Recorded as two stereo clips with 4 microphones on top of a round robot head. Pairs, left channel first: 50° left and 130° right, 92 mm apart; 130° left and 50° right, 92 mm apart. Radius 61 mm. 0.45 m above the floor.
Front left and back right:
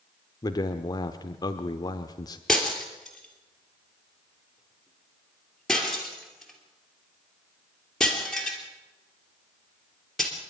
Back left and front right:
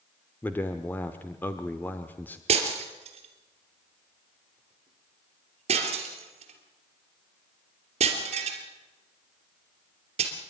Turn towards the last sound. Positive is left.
turn(degrees=-40)